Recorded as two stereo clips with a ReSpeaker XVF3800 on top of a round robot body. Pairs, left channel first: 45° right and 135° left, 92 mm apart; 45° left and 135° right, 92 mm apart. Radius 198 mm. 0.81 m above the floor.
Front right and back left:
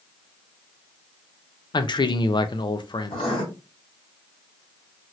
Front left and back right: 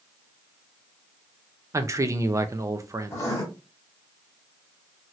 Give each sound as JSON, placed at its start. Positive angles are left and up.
{"t": 1.7, "sound": "a man speaking", "azimuth_deg": -80, "distance_m": 0.6}
{"t": 3.1, "sound": "writing", "azimuth_deg": -15, "distance_m": 1.0}